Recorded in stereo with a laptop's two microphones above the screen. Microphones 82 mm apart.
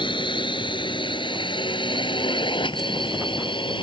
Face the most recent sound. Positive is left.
turn(degrees=85)